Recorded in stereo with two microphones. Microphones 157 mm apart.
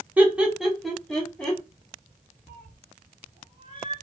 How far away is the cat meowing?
About 1.3 m.